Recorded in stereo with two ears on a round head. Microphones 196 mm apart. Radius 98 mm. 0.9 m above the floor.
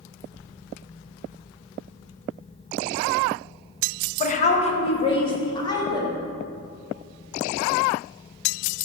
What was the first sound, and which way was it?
A woman speaking, 35° left (ahead or behind).